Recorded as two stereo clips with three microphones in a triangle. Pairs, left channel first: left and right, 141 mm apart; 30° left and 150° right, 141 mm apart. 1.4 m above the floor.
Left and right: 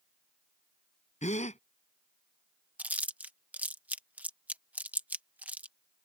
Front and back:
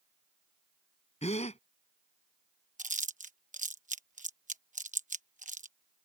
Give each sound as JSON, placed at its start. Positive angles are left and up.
{"t": 1.2, "sound": "a gasp", "azimuth_deg": 65}
{"t": 2.8, "sound": "chewing", "azimuth_deg": -170}